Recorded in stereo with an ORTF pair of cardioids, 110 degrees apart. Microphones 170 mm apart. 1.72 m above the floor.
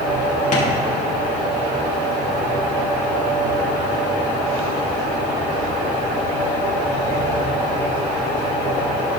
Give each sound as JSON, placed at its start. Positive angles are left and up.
{"t": 0.5, "sound": "tapping", "azimuth_deg": 45, "distance_m": 2.5}